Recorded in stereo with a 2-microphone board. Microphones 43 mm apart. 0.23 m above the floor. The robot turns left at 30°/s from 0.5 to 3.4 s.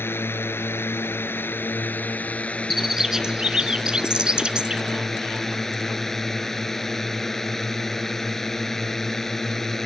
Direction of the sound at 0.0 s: 95° left.